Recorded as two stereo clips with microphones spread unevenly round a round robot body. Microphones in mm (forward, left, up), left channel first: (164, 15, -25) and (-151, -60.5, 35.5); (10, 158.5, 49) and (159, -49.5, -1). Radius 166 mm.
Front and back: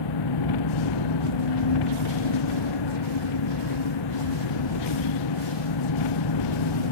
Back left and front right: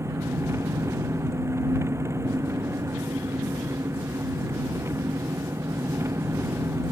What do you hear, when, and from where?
0.0 s an engine running: 25° left